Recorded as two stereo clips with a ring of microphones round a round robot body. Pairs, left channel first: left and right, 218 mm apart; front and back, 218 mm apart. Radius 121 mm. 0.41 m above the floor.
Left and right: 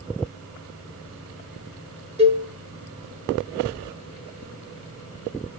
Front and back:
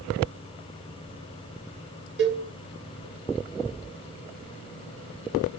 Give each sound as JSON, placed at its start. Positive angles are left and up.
{"t": 2.2, "sound": "a cowbell", "azimuth_deg": -150, "distance_m": 0.7}